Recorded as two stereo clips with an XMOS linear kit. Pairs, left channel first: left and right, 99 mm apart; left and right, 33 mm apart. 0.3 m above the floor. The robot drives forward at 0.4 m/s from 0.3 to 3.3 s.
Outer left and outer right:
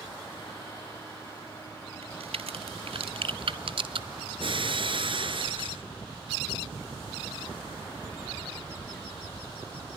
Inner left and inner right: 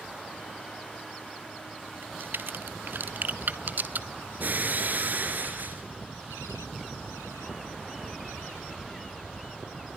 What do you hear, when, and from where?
2.0 s a crack: 80° right, 1.0 m; by 4.1 s 65° right (ahead or behind), 1.1 m
4.4 s breaking glass: 60° right (ahead or behind), 3 m